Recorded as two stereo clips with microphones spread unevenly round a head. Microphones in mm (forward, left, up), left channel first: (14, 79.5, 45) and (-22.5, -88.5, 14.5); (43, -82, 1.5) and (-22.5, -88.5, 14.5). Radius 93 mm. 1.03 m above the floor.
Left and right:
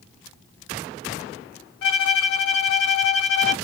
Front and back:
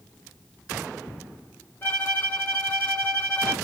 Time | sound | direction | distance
1.8 | a violin | 70° left | 0.7 m